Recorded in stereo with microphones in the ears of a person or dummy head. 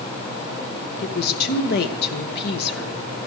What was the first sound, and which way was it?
A woman speaking, 60° left (ahead or behind).